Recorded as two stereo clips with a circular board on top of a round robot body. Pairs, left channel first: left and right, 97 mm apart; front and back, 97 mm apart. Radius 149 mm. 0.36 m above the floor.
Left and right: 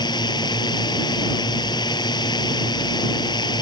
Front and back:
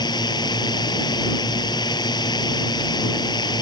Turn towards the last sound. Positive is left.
turn(degrees=45)